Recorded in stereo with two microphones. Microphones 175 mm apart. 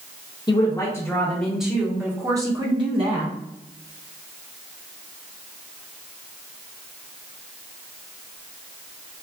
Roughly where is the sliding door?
I don't hear a sliding door.